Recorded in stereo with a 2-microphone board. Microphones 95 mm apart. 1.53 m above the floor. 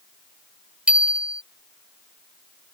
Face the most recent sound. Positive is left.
turn(degrees=-15)  # may be behind; listen again after turning